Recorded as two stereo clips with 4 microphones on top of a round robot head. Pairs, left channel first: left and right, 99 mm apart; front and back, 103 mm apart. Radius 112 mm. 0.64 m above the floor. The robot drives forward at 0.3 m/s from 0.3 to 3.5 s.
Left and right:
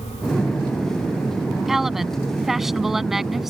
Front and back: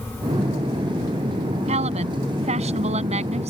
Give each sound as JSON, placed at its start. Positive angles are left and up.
{"t": 1.7, "sound": "a woman speaking", "azimuth_deg": -175}